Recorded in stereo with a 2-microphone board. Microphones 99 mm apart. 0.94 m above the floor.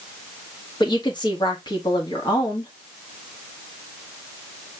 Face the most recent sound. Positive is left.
turn(degrees=50)  # may be behind; listen again after turning